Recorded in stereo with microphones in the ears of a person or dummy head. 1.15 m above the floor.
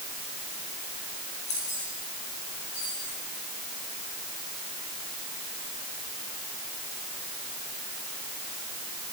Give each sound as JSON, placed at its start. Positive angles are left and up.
{"t": 1.5, "sound": "keys jangling", "side_deg": 35, "distance_m": 2.5}